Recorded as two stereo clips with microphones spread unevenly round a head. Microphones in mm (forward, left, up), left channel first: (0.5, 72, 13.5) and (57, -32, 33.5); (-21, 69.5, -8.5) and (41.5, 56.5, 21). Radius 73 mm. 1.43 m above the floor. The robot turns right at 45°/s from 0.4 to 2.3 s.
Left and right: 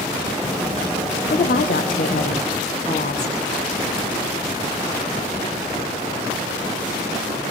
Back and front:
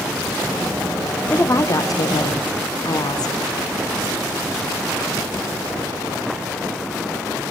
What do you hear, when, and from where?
1.3 s a woman speaking: 115° left, 1.2 m; by 3.4 s 160° left, 1.2 m